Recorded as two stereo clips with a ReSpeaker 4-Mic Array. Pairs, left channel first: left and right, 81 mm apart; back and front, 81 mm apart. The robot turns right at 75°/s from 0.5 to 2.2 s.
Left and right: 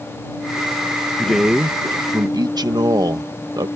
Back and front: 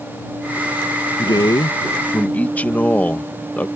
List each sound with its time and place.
1.2 s a man speaking: 170° left; by 3.7 s 110° right